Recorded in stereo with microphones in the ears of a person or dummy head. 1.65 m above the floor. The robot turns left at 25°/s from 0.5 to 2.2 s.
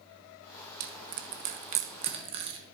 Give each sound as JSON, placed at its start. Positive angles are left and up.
{"t": 0.8, "sound": "crushing", "side_deg": -65, "distance_m": 1.1}